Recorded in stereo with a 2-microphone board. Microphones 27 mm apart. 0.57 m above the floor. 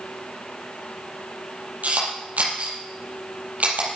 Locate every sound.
1.8 s a camera shutter: 65° right (ahead or behind), 5.5 m